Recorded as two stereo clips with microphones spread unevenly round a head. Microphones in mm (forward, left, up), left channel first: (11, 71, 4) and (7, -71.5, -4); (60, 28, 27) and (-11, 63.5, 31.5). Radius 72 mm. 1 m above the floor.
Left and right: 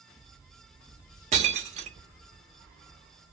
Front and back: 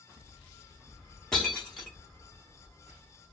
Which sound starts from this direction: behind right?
Breaking glass, at 1.3 s.